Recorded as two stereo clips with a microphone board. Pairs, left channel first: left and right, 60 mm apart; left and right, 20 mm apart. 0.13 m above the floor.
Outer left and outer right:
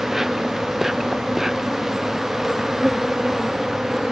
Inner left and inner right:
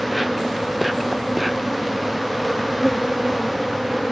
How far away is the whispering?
I don't hear whispering.